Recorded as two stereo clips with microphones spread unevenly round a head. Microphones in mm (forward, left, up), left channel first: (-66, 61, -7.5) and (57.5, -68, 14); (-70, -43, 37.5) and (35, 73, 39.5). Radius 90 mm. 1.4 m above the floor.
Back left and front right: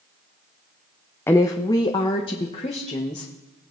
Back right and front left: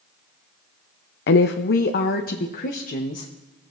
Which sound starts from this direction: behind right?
A woman speaking, at 1.3 s.